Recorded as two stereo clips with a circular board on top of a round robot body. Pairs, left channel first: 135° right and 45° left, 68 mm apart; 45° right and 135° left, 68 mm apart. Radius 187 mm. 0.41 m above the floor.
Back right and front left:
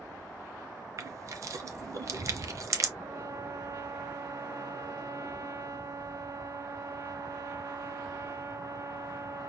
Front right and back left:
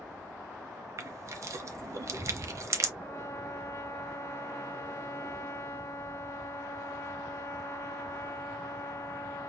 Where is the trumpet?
5° right, 1.6 m.